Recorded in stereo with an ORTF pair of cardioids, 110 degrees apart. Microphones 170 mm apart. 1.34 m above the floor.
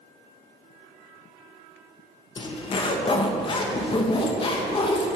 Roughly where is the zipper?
Ahead left.